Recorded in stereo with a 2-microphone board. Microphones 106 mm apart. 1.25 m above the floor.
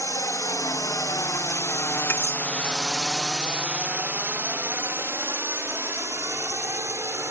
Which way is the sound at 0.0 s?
30° left (ahead or behind).